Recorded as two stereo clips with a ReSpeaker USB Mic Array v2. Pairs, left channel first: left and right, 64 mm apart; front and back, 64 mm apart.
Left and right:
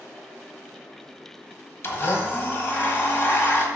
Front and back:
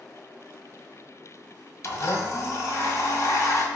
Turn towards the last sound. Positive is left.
turn(degrees=40)